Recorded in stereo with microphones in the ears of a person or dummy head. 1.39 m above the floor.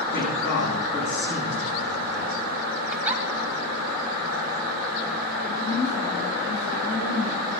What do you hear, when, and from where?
0.1 s a man speaking: 70° left (ahead or behind), 9.5 m
2.9 s a giggle: 10° right (ahead or behind), 2 m
5.4 s a woman speaking: 75° left (ahead or behind), 5.5 m